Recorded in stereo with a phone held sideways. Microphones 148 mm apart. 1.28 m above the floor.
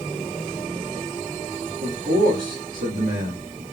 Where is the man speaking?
80° right, 1.8 m.